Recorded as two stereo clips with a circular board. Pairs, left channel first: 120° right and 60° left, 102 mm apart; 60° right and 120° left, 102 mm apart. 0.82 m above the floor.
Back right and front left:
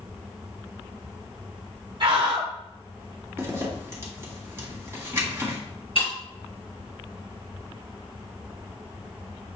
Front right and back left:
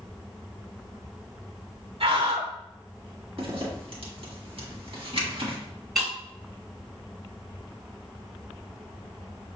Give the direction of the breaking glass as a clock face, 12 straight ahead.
5 o'clock.